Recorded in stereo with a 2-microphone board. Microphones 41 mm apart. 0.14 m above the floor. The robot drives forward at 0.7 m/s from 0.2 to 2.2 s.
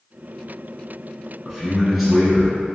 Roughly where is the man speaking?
Centre.